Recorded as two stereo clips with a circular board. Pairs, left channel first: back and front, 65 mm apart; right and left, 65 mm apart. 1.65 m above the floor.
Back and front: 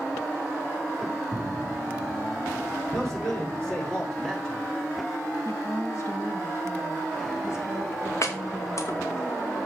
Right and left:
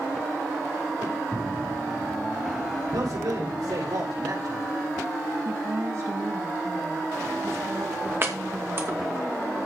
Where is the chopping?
140° left, 2.5 m.